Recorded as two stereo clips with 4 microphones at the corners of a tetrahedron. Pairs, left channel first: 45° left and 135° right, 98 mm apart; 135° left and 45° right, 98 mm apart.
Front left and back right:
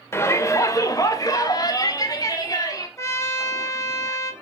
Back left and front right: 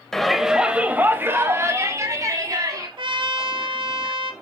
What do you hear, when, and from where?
0.1 s a shout: 55° left, 0.9 m; by 2.9 s straight ahead, 2.0 m
3.0 s a trumpet: 15° right, 1.0 m